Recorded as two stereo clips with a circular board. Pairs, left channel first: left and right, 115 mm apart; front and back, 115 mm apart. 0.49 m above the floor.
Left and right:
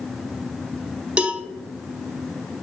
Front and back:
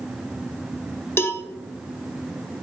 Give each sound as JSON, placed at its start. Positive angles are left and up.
{"t": 1.2, "sound": "a cowbell", "azimuth_deg": -25, "distance_m": 0.7}